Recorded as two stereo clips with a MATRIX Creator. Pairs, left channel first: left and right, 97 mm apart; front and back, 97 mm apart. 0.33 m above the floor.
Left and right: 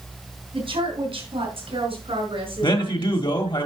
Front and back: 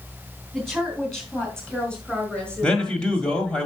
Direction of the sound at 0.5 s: 90° right.